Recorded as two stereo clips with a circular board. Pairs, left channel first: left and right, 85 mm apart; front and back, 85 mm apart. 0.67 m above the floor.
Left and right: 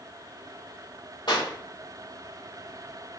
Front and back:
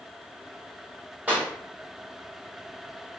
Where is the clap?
115° left, 2 m.